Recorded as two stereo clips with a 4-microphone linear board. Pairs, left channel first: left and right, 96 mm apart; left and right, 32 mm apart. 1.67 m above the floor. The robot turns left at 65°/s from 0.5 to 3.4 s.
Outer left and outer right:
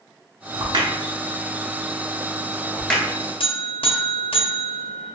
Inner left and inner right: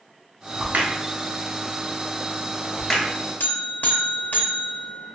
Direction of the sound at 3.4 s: 70° left (ahead or behind).